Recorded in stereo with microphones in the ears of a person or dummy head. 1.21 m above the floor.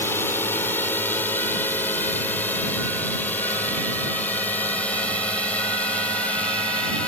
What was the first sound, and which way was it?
A drone, 15° left (ahead or behind).